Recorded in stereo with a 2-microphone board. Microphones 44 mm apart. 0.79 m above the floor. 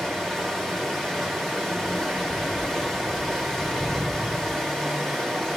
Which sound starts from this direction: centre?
Running water, at 0.0 s.